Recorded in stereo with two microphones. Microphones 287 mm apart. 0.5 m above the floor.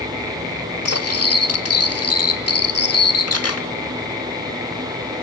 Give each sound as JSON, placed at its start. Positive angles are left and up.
{"t": 0.8, "sound": "cutlery clinking", "side_deg": 55, "distance_m": 0.7}